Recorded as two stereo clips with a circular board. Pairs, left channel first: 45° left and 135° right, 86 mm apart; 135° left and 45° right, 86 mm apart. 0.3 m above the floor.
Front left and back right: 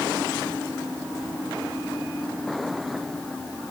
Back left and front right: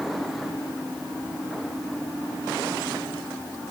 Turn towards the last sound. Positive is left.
No sound to turn to.